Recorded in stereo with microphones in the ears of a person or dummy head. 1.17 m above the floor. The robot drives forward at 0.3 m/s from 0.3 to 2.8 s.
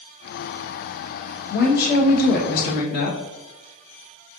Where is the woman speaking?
45° left (ahead or behind), 1.2 m; by 3.2 s 60° left (ahead or behind), 0.9 m.